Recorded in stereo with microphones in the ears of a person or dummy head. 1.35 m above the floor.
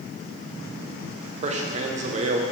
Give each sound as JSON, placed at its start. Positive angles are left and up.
{"t": 1.4, "sound": "a man speaking", "side_deg": -40, "distance_m": 0.8}